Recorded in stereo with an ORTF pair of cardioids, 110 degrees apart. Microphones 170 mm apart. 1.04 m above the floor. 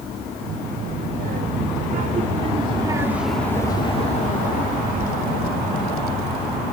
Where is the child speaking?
70° right; by 6.6 s 75° left.